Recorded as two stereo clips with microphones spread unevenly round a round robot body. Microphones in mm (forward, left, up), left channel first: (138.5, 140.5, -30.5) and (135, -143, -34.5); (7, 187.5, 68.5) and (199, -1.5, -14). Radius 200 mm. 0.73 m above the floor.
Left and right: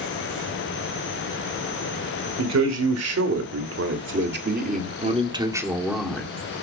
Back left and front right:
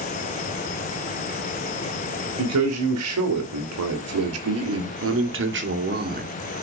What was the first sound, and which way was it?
A man speaking, 70° right.